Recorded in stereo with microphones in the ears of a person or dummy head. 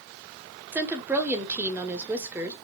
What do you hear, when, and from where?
0.7 s a woman speaking: 10° right (ahead or behind), 0.9 m